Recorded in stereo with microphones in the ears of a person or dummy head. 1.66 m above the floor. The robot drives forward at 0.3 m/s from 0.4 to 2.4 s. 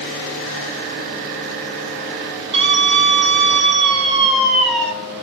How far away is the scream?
About 6.5 m.